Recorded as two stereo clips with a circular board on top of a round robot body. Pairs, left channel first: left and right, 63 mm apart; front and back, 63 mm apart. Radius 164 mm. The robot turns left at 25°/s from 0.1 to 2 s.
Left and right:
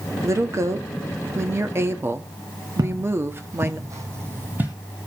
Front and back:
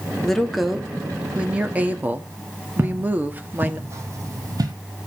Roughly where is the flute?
I don't hear a flute.